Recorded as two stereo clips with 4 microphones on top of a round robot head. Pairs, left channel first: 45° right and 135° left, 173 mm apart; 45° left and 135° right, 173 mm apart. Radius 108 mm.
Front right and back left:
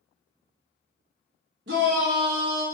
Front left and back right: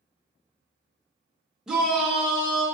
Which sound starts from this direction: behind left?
A shout, at 1.7 s.